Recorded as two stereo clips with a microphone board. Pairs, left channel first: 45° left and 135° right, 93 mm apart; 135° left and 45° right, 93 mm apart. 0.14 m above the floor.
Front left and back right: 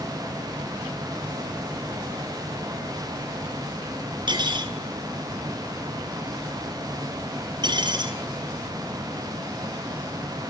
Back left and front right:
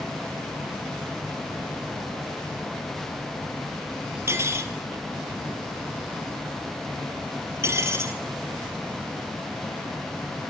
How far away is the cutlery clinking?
About 2.0 m.